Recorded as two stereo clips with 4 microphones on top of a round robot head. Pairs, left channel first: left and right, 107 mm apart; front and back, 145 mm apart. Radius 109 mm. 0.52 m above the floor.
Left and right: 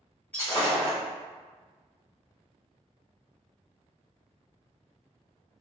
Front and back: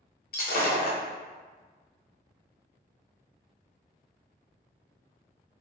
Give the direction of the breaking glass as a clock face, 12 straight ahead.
12 o'clock.